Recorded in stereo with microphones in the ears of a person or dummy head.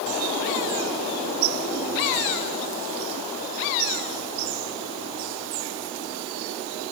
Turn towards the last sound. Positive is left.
No sound to turn to.